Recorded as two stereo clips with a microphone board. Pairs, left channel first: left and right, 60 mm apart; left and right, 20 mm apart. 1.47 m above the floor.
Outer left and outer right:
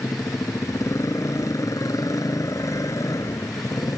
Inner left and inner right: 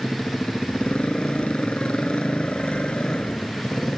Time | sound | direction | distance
0.0 | a motorcycle | 65° left (ahead or behind) | ?